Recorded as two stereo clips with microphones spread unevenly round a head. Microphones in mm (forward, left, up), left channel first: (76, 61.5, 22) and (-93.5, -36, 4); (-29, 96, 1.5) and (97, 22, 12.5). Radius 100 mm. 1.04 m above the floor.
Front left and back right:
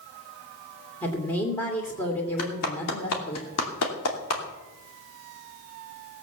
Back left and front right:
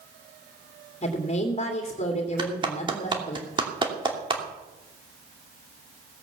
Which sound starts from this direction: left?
A woman speaking, at 1.0 s.